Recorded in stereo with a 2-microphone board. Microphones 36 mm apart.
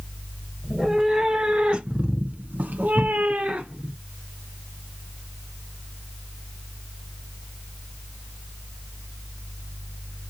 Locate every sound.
0.6 s a cat meowing: 20° right (ahead or behind), 1.2 m; by 3.9 s 30° right (ahead or behind), 0.9 m